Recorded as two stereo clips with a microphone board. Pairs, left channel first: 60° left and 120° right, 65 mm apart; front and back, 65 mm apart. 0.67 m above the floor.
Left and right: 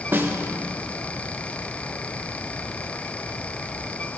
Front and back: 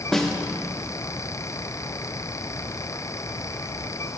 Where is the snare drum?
85° right, 0.6 m.